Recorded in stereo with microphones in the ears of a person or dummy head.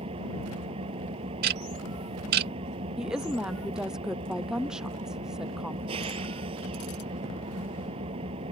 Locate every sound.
0.0 s an engine running: 30° right (ahead or behind)
1.4 s ticking: 50° right (ahead or behind)
3.0 s a woman speaking: 5° right (ahead or behind)